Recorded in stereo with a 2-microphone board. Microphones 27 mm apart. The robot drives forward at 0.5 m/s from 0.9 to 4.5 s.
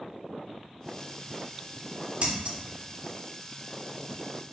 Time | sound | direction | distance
2.2 | scissors | 40° right (ahead or behind) | 0.8 m